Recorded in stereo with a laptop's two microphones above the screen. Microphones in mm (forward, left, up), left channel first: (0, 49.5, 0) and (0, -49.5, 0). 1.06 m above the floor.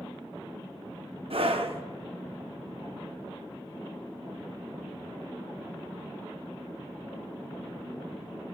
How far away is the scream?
About 1.1 m.